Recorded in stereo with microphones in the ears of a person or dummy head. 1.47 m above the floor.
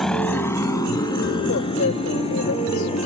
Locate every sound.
0.0 s a motorcycle: centre (ahead or behind); by 3.1 s 30° left (ahead or behind)
1.5 s a woman speaking: 65° left (ahead or behind)